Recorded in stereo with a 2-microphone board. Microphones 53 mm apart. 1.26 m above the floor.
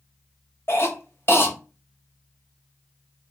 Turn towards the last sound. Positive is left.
turn(degrees=50)  # may be behind; listen again after turning